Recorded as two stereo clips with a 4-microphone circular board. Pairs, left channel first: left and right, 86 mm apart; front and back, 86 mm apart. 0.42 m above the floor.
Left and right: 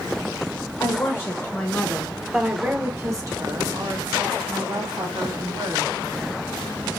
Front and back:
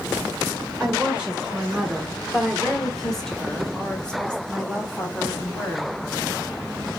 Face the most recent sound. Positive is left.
turn(degrees=-75)